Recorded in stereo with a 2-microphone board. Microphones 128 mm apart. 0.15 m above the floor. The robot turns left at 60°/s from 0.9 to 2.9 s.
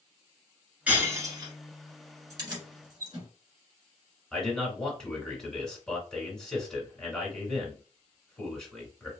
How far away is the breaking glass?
About 1.1 m.